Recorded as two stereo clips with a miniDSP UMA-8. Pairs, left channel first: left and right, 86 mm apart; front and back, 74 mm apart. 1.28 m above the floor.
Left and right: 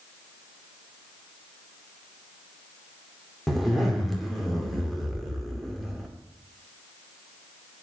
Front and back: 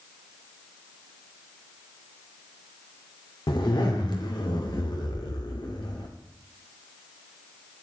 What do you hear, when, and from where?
3.5 s a zipper: straight ahead, 2 m